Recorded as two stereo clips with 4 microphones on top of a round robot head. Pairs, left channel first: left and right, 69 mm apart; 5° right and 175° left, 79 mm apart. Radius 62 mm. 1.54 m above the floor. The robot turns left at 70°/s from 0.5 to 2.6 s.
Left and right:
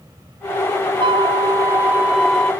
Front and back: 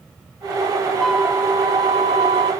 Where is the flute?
90° right; by 2.5 s 165° left.